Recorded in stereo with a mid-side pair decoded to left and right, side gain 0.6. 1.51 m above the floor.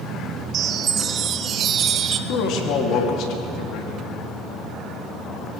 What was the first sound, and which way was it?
A chime, 45° right.